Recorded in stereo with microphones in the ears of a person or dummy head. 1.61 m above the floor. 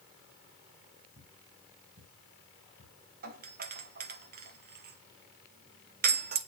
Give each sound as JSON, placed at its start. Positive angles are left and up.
{"t": 1.2, "sound": "footsteps", "side_deg": -50, "distance_m": 2.5}
{"t": 3.2, "sound": "a doorbell", "side_deg": -50, "distance_m": 1.3}